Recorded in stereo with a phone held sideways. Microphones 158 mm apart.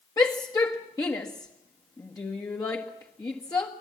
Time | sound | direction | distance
0.2 | a shout | 20° left (ahead or behind) | 1.4 m